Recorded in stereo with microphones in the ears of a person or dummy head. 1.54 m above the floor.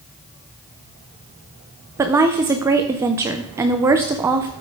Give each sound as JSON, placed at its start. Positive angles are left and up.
{"t": 2.0, "sound": "a woman speaking", "side_deg": -15, "distance_m": 0.6}